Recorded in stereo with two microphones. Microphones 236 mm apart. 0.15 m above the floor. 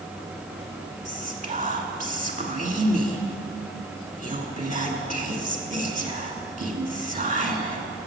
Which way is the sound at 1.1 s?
35° right (ahead or behind).